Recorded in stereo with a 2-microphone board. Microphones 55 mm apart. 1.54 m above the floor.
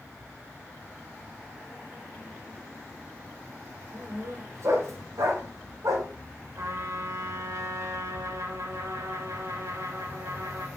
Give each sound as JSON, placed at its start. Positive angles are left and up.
{"t": 3.9, "sound": "a dog barking", "side_deg": -55, "distance_m": 2.0}
{"t": 6.6, "sound": "a trumpet", "side_deg": -65, "distance_m": 2.0}